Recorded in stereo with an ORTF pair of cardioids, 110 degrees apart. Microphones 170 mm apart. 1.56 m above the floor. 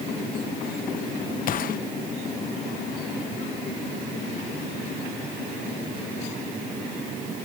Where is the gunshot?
55° left.